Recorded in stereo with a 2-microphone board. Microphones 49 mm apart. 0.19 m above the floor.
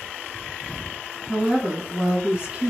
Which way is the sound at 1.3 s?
5° right (ahead or behind).